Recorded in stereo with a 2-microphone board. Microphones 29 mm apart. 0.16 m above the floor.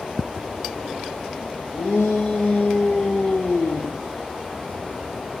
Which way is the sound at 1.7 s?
65° left (ahead or behind).